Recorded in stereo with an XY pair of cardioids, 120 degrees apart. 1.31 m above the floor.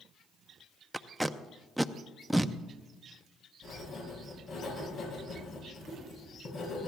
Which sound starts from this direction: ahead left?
Writing, at 3.6 s.